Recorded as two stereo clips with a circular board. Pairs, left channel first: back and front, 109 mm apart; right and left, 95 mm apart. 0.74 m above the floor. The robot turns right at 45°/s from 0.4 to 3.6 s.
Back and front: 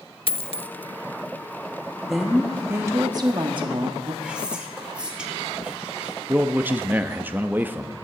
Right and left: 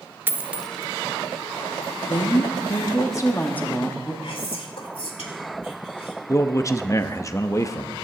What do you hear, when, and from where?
0.3 s a dropped coin: 155° left, 0.5 m; by 0.7 s 170° left, 0.5 m
2.0 s a woman speaking: 90° right, 1.3 m; by 4.1 s 20° right, 1.3 m
4.2 s whispering: 80° right, 2.0 m
6.3 s a man speaking: 60° right, 0.6 m